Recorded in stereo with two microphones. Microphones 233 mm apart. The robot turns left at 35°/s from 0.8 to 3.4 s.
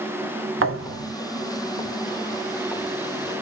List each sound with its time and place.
0.6 s a thud: 65° right (ahead or behind), 0.8 m; by 1.1 s 55° right (ahead or behind), 0.8 m